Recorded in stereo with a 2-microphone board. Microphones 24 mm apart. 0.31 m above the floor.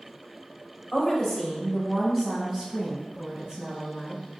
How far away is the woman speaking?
About 1.1 m.